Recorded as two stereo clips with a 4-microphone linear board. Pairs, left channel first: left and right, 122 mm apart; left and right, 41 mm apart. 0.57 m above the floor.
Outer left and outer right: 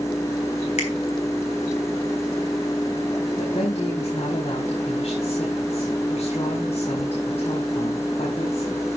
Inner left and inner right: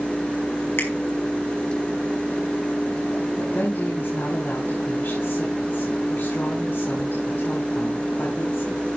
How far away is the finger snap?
About 4.5 m.